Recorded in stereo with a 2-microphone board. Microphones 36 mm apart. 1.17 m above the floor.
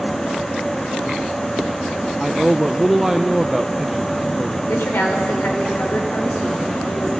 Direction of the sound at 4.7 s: 85° left.